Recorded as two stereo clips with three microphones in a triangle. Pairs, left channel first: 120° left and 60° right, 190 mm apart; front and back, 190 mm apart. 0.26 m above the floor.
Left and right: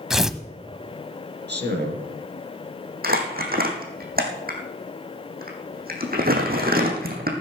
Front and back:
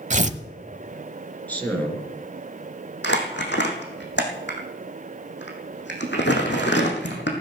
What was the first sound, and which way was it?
Tearing paper, 145° right.